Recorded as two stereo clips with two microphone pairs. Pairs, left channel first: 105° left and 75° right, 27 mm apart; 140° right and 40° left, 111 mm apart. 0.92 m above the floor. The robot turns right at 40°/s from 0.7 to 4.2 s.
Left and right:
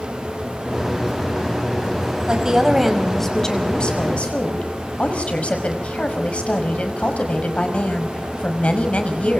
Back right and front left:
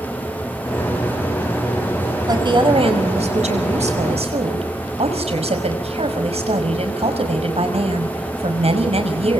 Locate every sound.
2.3 s a woman speaking: 15° right, 5.5 m; by 9.4 s 65° left, 5.5 m